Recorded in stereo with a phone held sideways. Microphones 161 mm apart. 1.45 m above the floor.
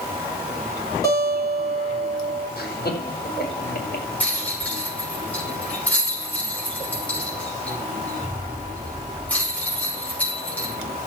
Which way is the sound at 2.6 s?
65° left (ahead or behind).